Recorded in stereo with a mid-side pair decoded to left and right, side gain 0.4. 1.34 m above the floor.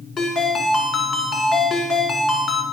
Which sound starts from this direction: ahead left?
A ringtone, at 0.2 s.